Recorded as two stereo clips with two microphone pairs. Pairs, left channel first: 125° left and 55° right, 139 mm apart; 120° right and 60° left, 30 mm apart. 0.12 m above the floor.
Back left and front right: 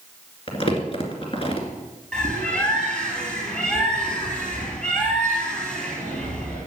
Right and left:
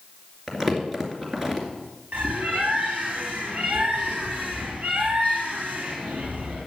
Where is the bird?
45° left, 3.5 m.